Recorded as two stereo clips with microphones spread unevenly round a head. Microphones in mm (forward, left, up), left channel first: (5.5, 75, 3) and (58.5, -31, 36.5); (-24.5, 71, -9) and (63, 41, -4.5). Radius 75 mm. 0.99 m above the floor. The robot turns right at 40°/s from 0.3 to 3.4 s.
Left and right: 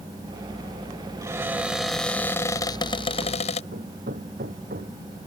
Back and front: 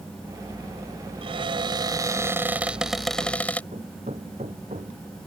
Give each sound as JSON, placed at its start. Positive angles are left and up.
{"t": 1.2, "sound": "a cupboard door", "azimuth_deg": 0}
{"t": 3.7, "sound": "hammering", "azimuth_deg": -60}